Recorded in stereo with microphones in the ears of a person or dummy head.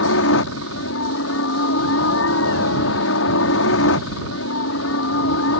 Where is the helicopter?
65° left (ahead or behind).